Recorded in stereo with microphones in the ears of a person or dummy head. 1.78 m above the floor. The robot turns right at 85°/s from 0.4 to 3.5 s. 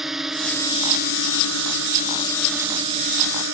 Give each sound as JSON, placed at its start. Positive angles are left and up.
{"t": 0.0, "sound": "a drone", "side_deg": 0}